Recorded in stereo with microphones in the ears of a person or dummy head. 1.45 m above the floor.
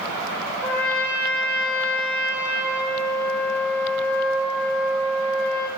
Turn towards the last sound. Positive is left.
turn(degrees=-20)  # may be behind; listen again after turning